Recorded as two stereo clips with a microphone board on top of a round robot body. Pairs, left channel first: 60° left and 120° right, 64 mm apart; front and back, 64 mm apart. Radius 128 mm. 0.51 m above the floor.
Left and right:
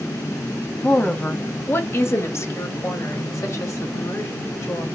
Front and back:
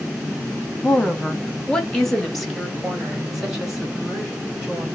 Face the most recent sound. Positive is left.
turn(degrees=100)